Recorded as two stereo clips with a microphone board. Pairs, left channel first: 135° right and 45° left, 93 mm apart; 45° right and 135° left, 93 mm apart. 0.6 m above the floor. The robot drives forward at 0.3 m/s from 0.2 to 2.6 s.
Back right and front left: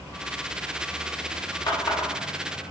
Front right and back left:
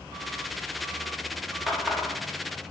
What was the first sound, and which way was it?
A running tap, 135° right.